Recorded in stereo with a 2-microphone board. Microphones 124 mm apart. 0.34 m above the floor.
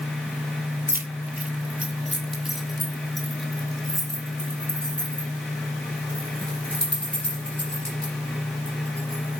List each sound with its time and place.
0.9 s keys jangling: 20° right (ahead or behind), 0.8 m; by 9.4 s 10° left (ahead or behind), 5 m